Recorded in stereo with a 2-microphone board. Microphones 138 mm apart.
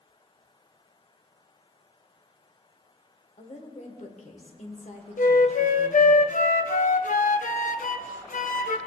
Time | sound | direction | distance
3.4 | a woman speaking | 55° left (ahead or behind) | 1.5 m
5.2 | a flute | 65° left (ahead or behind) | 0.5 m